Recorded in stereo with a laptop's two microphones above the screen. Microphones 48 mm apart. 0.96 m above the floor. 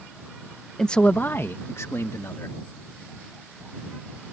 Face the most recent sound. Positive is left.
turn(degrees=75)  # may be behind; listen again after turning